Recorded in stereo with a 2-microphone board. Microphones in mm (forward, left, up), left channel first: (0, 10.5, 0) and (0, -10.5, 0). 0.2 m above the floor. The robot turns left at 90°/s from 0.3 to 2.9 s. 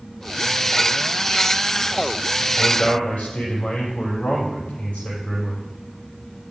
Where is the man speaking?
55° left (ahead or behind), 6 m; by 5.6 s 80° left, 6 m.